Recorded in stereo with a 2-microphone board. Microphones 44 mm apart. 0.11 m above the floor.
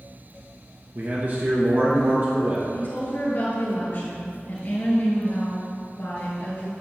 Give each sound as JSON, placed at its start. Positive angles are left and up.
{"t": 0.9, "sound": "a man speaking", "side_deg": -45, "distance_m": 1.6}
{"t": 2.7, "sound": "a woman speaking", "side_deg": 45, "distance_m": 2.0}